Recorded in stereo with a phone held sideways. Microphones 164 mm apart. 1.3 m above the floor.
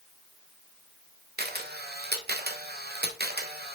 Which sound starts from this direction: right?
A camera shutter, at 1.4 s.